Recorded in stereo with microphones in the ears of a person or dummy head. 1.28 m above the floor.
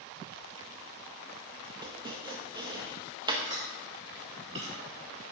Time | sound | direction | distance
1.8 | chopping | 20° right (ahead or behind) | 1.0 m
3.4 | chewing | 30° right (ahead or behind) | 3 m